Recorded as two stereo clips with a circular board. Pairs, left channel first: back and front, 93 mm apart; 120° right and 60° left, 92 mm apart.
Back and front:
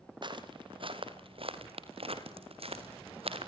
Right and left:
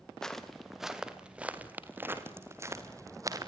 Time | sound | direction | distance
0.2 | footsteps | 35° right | 3 m